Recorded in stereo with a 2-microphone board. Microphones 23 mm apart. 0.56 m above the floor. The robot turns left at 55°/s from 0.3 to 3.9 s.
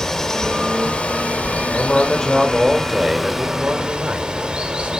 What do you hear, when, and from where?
0.0 s running water: 160° left, 1.0 m; by 5.0 s 40° right, 1.0 m
1.7 s a man speaking: 45° left, 1.6 m; by 5.0 s 75° right, 1.6 m